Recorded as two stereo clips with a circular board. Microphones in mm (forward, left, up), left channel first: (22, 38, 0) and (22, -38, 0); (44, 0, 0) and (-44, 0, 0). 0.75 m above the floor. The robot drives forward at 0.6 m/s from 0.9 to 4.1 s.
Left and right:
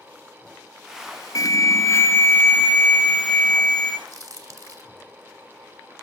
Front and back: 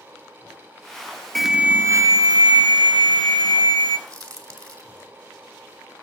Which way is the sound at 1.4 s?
85° left.